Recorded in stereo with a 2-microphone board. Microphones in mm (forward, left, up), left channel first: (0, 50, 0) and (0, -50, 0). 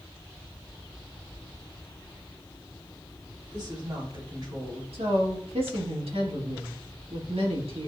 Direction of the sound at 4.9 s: 80° right.